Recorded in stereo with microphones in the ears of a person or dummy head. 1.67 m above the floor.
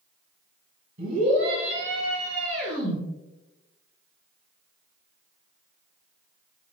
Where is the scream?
55° right (ahead or behind), 1.8 m; by 3.0 s 60° right (ahead or behind), 3.5 m.